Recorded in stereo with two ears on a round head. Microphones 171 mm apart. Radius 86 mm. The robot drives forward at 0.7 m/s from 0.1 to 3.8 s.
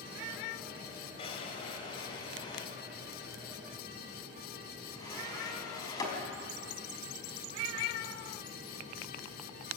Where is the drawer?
30° left (ahead or behind), 3.5 m; by 6.1 s 20° left (ahead or behind), 5 m.